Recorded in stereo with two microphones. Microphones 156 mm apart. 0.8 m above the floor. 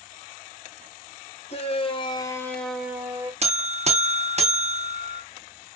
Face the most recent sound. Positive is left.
turn(degrees=-45)  # may be behind; listen again after turning